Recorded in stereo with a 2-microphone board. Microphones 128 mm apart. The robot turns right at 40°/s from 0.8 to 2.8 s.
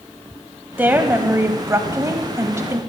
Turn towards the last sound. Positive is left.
turn(degrees=-20)  # may be behind; listen again after turning